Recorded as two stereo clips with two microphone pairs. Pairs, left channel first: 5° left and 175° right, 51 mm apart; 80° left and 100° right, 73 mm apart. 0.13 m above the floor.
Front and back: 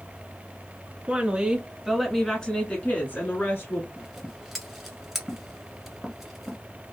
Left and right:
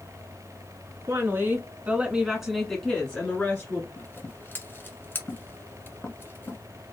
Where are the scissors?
95° left, 1.2 m.